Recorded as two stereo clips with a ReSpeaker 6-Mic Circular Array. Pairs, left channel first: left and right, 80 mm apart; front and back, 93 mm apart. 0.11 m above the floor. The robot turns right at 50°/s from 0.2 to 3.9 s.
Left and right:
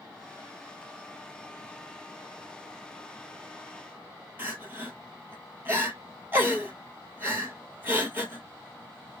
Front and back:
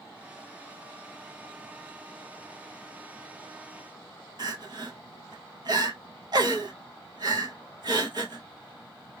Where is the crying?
150° right, 0.7 m.